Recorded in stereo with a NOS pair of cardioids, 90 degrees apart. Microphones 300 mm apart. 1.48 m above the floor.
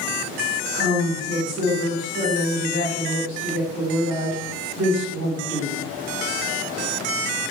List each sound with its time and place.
0.7 s a woman speaking: 60° right, 1.5 m